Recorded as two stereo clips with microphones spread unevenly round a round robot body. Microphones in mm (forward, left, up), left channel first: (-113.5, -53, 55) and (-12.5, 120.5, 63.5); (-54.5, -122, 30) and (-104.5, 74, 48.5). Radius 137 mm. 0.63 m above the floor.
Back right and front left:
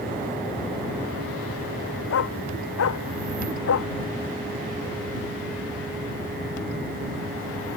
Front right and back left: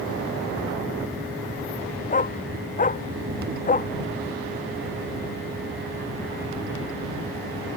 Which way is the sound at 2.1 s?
125° right.